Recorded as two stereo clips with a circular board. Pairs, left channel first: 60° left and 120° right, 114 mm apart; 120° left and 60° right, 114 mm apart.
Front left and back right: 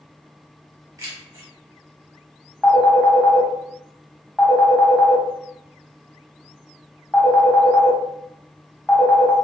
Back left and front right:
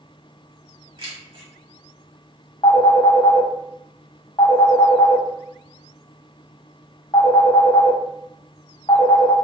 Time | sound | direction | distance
1.0 | keys jangling | 80° right | 1.3 m
2.6 | a phone ringing | 145° left | 0.9 m